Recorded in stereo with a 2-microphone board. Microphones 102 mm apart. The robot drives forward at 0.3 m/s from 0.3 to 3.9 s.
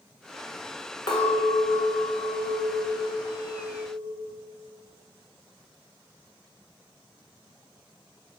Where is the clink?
50° left (ahead or behind), 1.0 m; by 4.3 s 45° left (ahead or behind), 1.1 m.